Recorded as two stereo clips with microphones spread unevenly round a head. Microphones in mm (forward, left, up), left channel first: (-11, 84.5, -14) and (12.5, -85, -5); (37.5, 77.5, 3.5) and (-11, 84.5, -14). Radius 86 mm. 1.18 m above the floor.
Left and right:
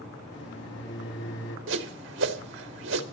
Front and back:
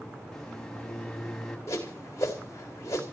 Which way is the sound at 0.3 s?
70° left.